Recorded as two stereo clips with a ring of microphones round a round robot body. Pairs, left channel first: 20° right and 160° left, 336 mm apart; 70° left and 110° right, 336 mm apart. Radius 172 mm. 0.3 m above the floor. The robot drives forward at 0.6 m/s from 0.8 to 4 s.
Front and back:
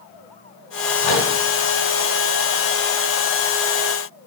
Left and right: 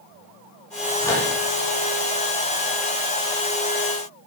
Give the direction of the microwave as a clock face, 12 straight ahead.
12 o'clock.